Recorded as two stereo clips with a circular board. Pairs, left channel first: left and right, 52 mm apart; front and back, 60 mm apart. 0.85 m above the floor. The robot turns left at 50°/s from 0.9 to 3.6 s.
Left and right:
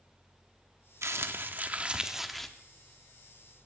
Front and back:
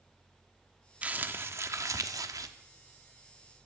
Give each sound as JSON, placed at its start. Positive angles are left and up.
{"t": 1.0, "sound": "crumpling", "azimuth_deg": -115, "distance_m": 0.8}